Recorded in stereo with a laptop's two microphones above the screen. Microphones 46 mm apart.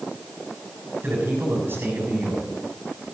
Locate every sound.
1.0 s a man speaking: 55° right (ahead or behind), 6.5 m